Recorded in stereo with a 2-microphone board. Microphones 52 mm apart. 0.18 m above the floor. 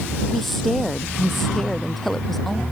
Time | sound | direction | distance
0.3 | a woman speaking | 5° left (ahead or behind) | ?